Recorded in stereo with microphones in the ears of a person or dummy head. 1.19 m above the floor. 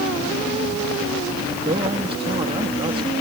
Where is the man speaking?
25° right (ahead or behind).